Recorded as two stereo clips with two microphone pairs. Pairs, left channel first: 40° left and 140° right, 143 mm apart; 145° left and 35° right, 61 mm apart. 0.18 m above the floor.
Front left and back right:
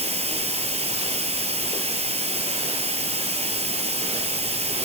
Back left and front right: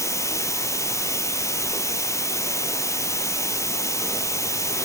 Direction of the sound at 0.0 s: Straight behind.